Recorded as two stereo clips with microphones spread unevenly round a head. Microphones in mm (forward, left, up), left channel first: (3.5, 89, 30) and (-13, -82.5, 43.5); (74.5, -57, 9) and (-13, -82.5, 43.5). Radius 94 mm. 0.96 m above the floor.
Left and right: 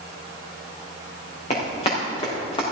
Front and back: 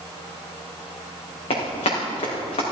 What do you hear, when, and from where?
1.5 s running footsteps: 25° left, 5.5 m; by 2.6 s 20° left, 5 m